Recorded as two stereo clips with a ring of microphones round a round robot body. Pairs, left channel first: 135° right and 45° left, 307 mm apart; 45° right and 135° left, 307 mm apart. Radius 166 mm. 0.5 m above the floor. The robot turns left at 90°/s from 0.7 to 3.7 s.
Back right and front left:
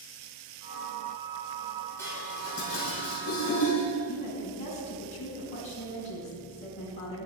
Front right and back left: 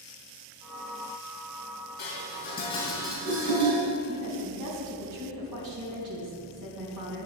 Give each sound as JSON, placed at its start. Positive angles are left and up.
{"t": 2.0, "sound": "dishes clattering", "azimuth_deg": -50, "distance_m": 2.5}
{"t": 4.1, "sound": "a woman speaking", "azimuth_deg": 160, "distance_m": 3.5}